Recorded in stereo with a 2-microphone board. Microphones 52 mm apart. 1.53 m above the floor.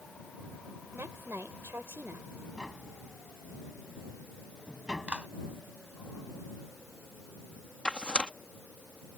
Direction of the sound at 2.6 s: 15° right (ahead or behind).